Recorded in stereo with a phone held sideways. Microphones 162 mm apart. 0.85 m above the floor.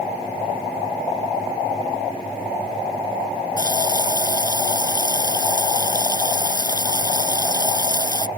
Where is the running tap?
25° left (ahead or behind).